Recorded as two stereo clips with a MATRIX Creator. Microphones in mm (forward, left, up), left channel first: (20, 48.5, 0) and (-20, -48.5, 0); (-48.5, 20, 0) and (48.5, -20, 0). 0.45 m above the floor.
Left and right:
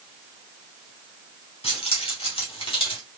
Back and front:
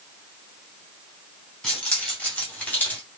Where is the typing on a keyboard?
I don't hear typing on a keyboard.